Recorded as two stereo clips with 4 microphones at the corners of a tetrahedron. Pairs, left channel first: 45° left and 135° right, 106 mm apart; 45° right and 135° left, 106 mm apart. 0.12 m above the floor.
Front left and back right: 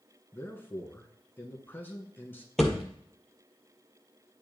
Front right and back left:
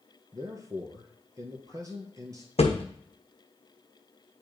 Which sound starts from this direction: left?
A man speaking, at 0.3 s.